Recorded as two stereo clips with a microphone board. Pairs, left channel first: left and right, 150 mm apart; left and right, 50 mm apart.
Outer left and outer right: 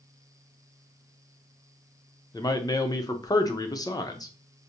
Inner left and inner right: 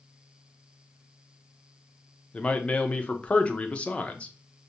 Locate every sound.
2.3 s a man speaking: 25° left (ahead or behind), 0.6 m